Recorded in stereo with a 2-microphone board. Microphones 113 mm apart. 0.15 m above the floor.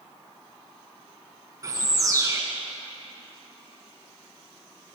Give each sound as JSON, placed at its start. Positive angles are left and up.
{"t": 1.6, "sound": "a bird", "side_deg": -30, "distance_m": 0.9}